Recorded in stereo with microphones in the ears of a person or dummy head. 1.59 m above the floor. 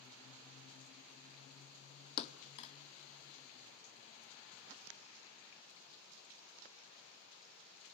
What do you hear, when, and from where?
2.2 s a thud: 40° left (ahead or behind), 1.6 m